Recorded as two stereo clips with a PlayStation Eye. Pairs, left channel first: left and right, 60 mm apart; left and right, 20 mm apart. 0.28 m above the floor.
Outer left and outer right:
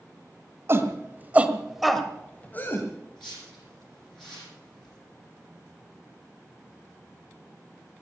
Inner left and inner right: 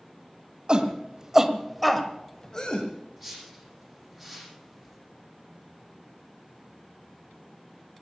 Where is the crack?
No crack in this recording.